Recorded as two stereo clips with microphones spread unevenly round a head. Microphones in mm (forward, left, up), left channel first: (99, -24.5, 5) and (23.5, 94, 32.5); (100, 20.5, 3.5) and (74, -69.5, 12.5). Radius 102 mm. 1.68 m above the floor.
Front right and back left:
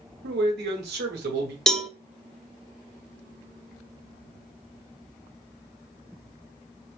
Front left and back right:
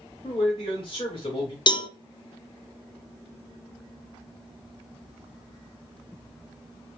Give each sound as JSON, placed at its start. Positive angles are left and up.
{"t": 0.2, "sound": "a man speaking", "azimuth_deg": 140, "distance_m": 1.1}
{"t": 1.7, "sound": "a cowbell", "azimuth_deg": 30, "distance_m": 0.6}